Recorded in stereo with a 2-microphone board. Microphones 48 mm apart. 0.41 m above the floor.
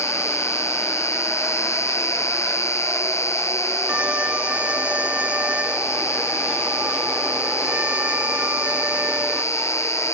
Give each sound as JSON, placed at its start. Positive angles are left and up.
{"t": 0.0, "sound": "an insect", "side_deg": 80}
{"t": 3.9, "sound": "a violin", "side_deg": -25}